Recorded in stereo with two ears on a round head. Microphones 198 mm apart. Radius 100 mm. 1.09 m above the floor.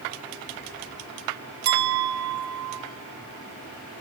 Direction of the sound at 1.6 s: 45° right (ahead or behind).